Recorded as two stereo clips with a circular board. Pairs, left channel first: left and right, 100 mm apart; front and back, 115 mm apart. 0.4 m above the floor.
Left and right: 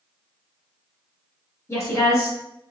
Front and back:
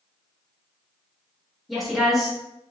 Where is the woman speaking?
90° left, 1.1 m.